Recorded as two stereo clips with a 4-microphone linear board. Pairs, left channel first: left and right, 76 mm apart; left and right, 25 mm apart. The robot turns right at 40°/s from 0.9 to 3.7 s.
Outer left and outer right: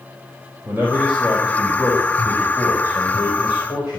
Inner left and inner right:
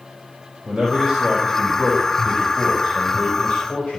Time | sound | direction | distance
0.7 | a man speaking | 30° right | 4.5 m